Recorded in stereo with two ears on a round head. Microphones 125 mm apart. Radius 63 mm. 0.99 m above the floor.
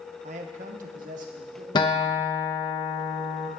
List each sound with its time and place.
0.2 s a man speaking: 50° right (ahead or behind), 0.9 m; by 1.6 s 60° right (ahead or behind), 2 m
1.8 s a guitar: 30° left (ahead or behind), 1.0 m